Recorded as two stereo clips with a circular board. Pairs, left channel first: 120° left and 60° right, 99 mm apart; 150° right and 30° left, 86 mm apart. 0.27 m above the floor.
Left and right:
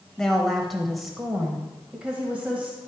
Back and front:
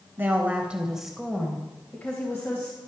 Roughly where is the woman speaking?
Ahead left.